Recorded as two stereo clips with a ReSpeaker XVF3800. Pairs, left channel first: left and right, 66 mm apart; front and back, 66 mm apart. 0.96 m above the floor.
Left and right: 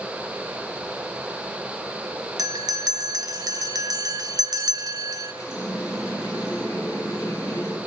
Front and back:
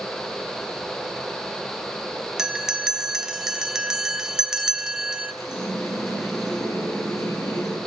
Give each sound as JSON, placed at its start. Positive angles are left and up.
{"t": 2.4, "sound": "a bell", "azimuth_deg": -100, "distance_m": 0.8}
{"t": 5.4, "sound": "a running tap", "azimuth_deg": 45, "distance_m": 7.0}